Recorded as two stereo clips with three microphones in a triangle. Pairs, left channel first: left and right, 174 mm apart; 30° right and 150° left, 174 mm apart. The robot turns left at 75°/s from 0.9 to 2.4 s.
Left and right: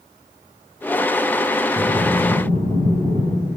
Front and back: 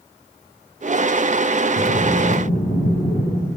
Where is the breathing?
Straight ahead, 3.5 m; by 3.3 s 45° right, 3.5 m.